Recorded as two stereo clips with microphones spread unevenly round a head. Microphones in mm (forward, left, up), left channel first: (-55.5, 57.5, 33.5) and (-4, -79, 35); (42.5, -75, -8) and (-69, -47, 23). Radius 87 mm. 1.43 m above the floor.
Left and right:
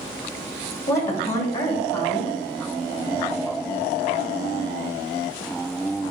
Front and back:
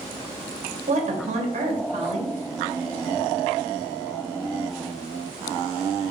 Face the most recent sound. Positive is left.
turn(degrees=-175)